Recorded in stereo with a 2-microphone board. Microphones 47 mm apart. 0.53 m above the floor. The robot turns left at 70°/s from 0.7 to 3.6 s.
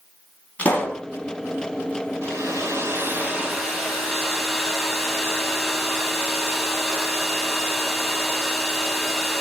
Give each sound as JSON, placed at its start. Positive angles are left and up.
{"t": 0.6, "sound": "a pop", "side_deg": 30, "distance_m": 2.5}
{"t": 2.2, "sound": "a hair dryer", "azimuth_deg": -80, "distance_m": 3.0}